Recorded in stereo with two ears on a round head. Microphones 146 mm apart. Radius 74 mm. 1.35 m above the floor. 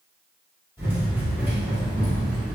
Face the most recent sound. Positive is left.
turn(degrees=0)  # may be behind; listen again after turning